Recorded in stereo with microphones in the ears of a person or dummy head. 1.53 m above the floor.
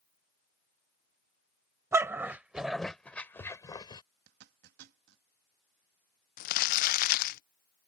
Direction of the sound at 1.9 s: 20° right (ahead or behind).